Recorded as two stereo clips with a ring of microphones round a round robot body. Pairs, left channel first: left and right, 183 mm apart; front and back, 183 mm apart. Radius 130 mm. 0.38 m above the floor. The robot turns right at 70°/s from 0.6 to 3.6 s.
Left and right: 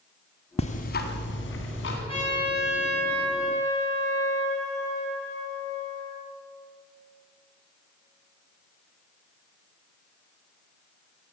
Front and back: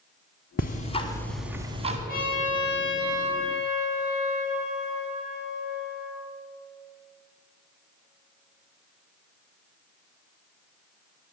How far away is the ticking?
About 1.9 m.